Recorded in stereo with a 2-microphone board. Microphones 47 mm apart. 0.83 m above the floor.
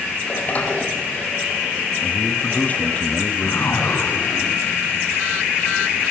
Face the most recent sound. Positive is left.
turn(degrees=55)  # may be behind; listen again after turning